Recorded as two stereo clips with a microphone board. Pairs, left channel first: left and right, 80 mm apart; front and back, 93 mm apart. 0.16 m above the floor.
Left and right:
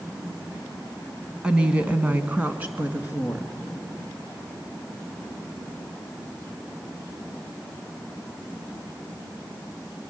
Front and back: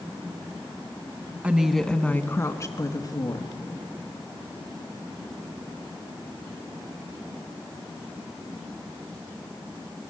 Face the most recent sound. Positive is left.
turn(degrees=-25)